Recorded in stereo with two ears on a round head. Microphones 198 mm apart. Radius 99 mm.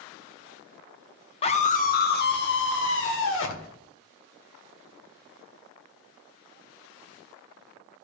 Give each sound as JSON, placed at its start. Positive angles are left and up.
{"t": 1.4, "sound": "a scream", "side_deg": 25, "distance_m": 0.8}